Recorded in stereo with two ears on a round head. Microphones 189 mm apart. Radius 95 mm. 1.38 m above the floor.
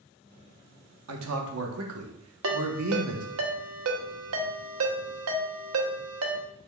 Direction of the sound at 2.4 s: 75° right (ahead or behind).